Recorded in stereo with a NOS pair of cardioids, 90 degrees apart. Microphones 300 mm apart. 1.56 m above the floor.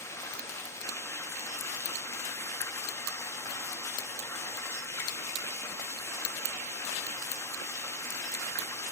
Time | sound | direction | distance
0.0 | running water | 10° left | 2.5 m